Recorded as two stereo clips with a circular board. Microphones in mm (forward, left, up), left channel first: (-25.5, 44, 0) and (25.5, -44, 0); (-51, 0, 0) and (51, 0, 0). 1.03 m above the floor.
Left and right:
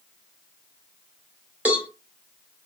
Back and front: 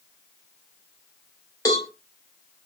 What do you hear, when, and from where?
1.6 s a cowbell: 135° right, 0.9 m